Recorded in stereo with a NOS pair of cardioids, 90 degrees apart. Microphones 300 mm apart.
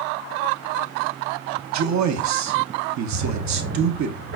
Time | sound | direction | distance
1.7 | a man speaking | 65° right | 1.3 m
3.1 | a drawer | 65° right | 3 m